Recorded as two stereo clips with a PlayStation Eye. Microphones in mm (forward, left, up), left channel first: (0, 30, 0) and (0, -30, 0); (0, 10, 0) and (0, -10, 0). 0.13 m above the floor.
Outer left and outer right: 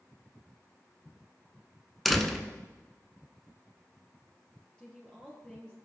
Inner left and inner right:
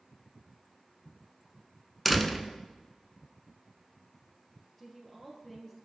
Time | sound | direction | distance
2.0 | a door slam | centre (ahead or behind) | 0.9 m
4.8 | a woman speaking | 15° left (ahead or behind) | 2 m